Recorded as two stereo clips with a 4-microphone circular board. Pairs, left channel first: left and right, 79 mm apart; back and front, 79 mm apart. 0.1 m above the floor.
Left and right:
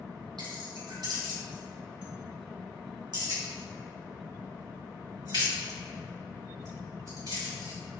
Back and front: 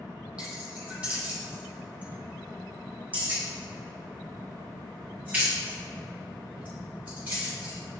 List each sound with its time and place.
0.4 s keys jangling: 75° right, 3 m; by 7.8 s 65° right, 7.5 m